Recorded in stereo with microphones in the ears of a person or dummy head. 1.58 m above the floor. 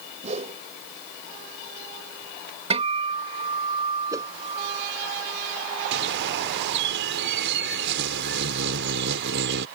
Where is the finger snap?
I don't hear a finger snap.